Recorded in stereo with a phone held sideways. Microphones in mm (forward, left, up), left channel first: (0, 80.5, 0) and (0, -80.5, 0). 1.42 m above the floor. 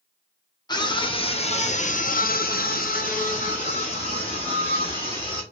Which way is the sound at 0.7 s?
25° left (ahead or behind).